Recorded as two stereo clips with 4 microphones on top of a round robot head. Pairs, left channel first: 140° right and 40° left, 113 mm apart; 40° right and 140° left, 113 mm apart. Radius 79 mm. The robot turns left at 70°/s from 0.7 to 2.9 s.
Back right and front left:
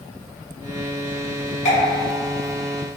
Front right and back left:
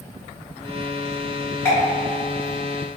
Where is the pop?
115° right, 0.9 m; by 3.0 s 155° left, 0.9 m.